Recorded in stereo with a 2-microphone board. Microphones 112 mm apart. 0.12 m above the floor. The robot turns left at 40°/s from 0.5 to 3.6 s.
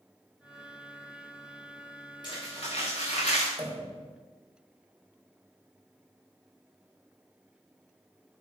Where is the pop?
20° right (ahead or behind), 4 m.